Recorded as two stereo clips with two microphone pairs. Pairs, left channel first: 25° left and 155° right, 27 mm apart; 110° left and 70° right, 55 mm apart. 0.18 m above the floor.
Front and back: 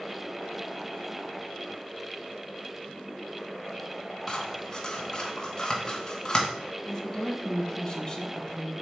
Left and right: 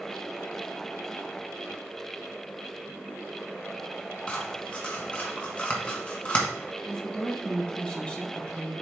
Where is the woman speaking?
60° left, 1.7 m.